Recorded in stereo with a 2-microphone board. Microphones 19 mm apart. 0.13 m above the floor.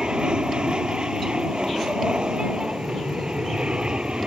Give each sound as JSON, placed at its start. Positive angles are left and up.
{"t": 0.0, "sound": "an aircraft", "side_deg": -50}